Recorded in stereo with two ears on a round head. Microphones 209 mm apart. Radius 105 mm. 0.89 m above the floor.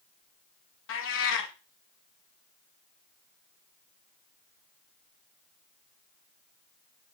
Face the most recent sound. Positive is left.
turn(degrees=55)  # may be behind; listen again after turning